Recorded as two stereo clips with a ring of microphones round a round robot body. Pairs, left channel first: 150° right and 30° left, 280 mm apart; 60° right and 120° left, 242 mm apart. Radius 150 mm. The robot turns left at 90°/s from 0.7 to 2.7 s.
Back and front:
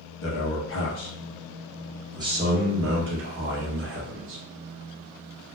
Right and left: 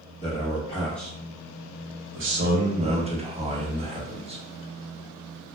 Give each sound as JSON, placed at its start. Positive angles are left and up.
{"t": 0.2, "sound": "a man speaking", "azimuth_deg": -120, "distance_m": 0.9}